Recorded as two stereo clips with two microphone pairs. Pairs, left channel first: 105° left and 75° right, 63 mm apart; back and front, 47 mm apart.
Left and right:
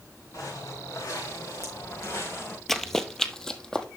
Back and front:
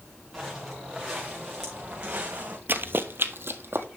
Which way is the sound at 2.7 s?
20° left.